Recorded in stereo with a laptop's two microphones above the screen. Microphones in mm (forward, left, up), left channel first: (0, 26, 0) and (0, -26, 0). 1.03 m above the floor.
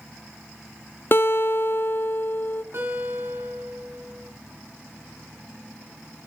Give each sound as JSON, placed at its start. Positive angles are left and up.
{"t": 1.1, "sound": "a guitar", "side_deg": 45, "distance_m": 0.6}
{"t": 2.7, "sound": "a guitar", "side_deg": -50, "distance_m": 6.0}